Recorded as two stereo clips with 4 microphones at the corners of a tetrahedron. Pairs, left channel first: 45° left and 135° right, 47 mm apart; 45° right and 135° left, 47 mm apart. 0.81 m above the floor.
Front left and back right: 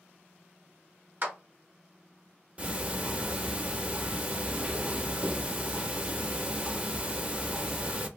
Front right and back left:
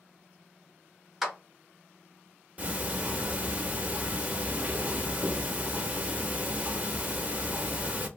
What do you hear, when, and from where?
1.2 s a clap: 150° right, 0.9 m
2.6 s ticking: straight behind, 0.6 m